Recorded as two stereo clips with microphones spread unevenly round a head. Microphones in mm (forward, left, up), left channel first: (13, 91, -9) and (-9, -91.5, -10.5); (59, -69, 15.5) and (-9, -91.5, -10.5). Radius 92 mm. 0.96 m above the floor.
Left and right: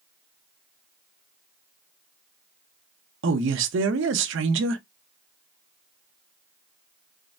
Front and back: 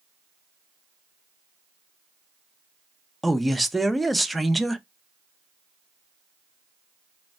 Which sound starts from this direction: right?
A man speaking, at 3.2 s.